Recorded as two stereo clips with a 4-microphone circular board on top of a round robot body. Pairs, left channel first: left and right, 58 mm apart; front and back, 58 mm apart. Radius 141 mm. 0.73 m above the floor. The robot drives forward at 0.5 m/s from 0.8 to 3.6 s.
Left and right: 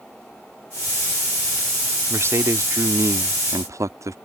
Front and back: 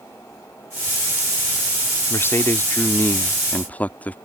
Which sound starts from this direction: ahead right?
A man speaking, at 2.1 s.